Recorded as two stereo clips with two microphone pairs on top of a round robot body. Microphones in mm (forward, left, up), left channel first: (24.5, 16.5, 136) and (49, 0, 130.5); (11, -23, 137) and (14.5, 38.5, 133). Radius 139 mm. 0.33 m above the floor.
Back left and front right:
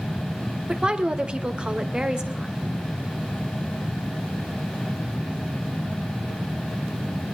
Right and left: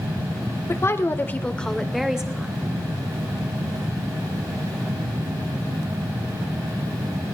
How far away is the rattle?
I don't hear a rattle.